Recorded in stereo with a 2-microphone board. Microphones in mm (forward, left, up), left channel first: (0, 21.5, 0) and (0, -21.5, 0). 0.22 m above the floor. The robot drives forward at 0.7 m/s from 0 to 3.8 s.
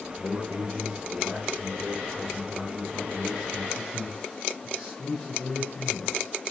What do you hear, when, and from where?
0.2 s a man speaking: 5° right (ahead or behind), 8.5 m